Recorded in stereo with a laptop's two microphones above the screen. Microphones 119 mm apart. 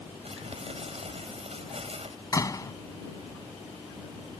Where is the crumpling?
65° right (ahead or behind).